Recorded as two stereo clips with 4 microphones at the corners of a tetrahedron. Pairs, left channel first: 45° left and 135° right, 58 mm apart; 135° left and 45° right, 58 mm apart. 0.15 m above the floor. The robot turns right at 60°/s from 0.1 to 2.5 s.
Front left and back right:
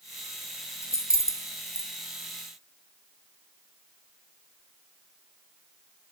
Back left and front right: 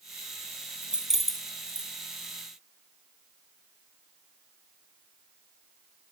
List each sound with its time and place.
0.8 s keys jangling: 20° left, 2 m; by 1.9 s 85° left, 2 m